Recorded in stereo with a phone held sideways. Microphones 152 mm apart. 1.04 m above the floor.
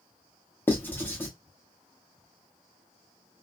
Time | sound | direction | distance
0.7 | writing | 15° left (ahead or behind) | 0.8 m